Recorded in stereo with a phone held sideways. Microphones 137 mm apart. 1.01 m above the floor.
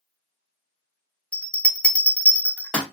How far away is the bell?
About 0.6 m.